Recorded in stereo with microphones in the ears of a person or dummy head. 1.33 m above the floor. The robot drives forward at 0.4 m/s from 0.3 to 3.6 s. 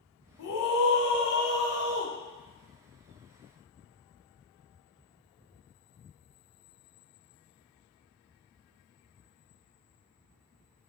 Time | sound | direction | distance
0.4 | a scream | 75° left (ahead or behind) | 1.1 m